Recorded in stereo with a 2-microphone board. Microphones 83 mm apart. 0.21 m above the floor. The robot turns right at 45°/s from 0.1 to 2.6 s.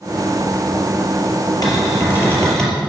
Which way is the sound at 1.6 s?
130° left.